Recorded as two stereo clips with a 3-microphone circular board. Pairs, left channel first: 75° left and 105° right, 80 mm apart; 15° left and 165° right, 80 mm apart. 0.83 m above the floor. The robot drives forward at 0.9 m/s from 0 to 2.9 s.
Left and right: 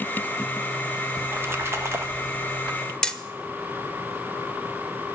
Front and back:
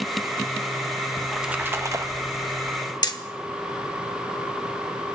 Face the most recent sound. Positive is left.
turn(degrees=-5)